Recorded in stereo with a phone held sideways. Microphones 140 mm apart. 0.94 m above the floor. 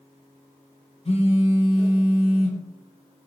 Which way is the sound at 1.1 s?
45° left (ahead or behind).